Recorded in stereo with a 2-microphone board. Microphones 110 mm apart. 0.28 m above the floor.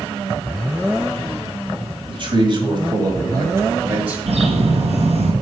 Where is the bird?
70° right (ahead or behind), 1.9 m.